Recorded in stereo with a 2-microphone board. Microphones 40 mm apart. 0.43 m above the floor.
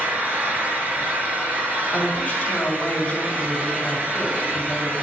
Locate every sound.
0.0 s an engine running: 45° right (ahead or behind), 3.5 m
1.9 s a woman speaking: 30° left (ahead or behind), 4 m